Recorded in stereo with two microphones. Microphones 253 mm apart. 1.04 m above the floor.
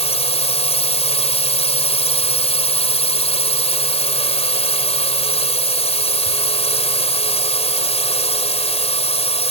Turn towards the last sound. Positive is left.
turn(degrees=25)  # may be behind; listen again after turning